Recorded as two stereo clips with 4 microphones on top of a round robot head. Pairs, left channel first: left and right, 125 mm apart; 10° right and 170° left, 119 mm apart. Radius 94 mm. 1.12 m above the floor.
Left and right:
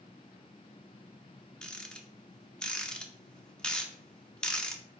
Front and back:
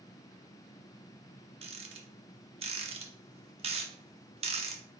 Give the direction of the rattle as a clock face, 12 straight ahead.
6 o'clock.